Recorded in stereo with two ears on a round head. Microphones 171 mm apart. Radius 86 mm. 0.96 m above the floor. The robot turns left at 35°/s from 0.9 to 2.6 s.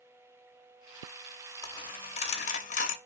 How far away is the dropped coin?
About 0.5 m.